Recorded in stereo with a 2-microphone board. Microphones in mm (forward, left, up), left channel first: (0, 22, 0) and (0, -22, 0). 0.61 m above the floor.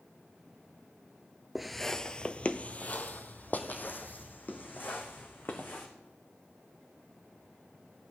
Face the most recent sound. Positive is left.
turn(degrees=55)  # may be behind; listen again after turning